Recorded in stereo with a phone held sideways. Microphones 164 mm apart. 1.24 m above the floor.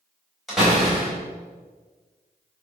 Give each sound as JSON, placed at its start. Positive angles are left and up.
{"t": 0.5, "sound": "a door slam", "side_deg": 0, "distance_m": 4.0}